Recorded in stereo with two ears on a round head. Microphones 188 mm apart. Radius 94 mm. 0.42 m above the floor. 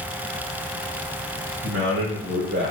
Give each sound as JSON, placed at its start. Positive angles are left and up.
{"t": 1.6, "sound": "a man speaking", "side_deg": -45, "distance_m": 1.4}